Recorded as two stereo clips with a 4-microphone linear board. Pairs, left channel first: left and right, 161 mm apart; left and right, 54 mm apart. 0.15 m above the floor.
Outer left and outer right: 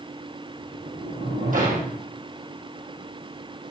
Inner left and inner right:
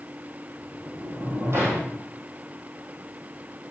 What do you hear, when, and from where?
0.6 s a sliding door: 55° right (ahead or behind), 3.5 m